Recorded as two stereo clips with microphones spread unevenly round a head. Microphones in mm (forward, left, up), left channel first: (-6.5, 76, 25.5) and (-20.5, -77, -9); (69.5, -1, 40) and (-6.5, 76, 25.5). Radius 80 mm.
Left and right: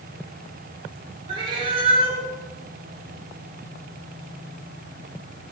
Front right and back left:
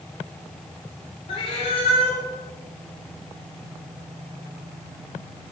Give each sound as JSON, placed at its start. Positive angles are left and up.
{"t": 1.3, "sound": "a cat meowing", "azimuth_deg": -30, "distance_m": 2.0}